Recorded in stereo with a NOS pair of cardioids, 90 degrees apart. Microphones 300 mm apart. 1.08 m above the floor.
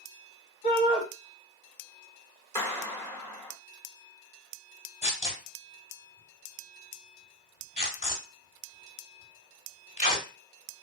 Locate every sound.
0.6 s a shout: 65° left, 1.7 m
2.5 s a clap: 10° left, 1.5 m
5.0 s tearing paper: 20° left, 1.6 m